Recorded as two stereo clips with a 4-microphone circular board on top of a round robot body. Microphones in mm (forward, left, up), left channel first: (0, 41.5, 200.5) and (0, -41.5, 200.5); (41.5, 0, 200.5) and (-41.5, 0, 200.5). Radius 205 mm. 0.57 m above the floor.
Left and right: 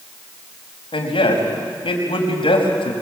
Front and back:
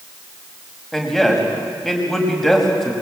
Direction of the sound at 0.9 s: 90° left.